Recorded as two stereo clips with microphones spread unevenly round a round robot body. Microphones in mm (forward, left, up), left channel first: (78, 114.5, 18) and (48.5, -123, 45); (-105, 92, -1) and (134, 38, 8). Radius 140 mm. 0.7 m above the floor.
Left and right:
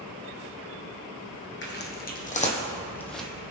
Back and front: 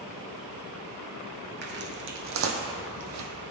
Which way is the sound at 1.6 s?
35° left.